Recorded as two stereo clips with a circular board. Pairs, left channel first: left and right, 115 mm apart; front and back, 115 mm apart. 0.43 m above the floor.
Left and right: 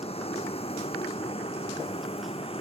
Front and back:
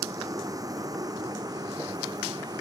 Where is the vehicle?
120° left; by 2.6 s 125° left.